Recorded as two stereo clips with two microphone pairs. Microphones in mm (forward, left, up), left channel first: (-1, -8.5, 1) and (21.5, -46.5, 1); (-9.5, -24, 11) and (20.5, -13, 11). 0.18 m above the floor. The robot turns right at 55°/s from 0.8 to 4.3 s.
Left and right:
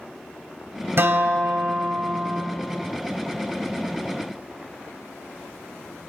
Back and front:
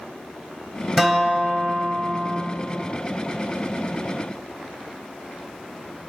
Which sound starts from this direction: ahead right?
A guitar, at 1.0 s.